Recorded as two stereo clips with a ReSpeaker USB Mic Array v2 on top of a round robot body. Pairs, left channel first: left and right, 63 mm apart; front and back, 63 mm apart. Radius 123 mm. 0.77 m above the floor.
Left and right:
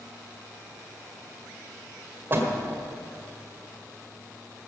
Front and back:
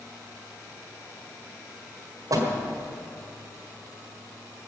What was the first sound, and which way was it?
A door slam, 150° right.